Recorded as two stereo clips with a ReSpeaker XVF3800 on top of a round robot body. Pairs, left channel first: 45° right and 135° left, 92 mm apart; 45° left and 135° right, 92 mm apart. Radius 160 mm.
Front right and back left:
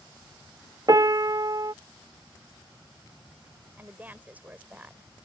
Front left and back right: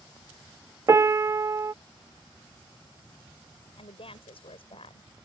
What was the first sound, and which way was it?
A piano, 175° left.